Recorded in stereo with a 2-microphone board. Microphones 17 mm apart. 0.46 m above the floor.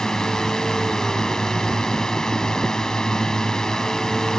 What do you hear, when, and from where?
0.0 s a drone: 35° left (ahead or behind)